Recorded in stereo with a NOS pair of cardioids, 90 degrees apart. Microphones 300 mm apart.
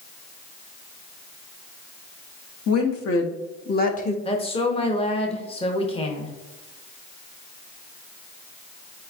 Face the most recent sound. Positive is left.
turn(degrees=20)